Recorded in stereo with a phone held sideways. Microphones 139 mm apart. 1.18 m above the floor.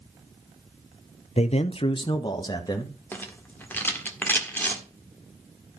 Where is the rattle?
15° left (ahead or behind), 1.6 m.